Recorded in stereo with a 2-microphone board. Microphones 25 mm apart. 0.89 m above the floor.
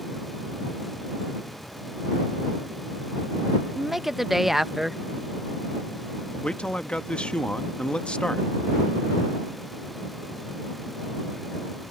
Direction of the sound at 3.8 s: 10° right (ahead or behind).